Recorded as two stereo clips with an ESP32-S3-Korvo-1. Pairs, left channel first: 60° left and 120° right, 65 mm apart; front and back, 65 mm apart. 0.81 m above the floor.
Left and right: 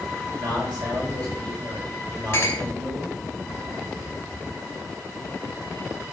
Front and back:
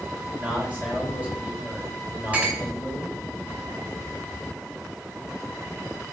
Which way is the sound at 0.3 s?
115° right.